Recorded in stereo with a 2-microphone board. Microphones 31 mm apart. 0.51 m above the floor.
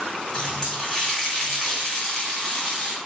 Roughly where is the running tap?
Left.